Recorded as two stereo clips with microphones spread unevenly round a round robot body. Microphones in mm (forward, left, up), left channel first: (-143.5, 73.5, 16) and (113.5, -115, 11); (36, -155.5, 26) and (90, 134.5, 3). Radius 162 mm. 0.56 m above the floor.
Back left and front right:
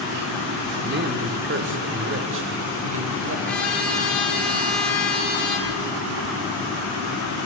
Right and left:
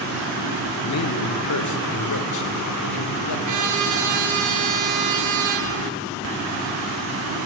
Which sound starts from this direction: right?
A man speaking, at 0.8 s.